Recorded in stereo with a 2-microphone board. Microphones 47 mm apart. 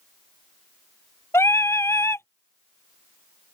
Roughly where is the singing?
Left.